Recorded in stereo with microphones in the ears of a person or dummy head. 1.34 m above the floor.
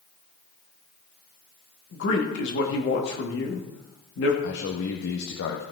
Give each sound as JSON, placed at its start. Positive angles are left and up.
{"t": 1.9, "sound": "a man speaking", "side_deg": 75, "distance_m": 2.5}
{"t": 4.4, "sound": "a man speaking", "side_deg": 80, "distance_m": 1.4}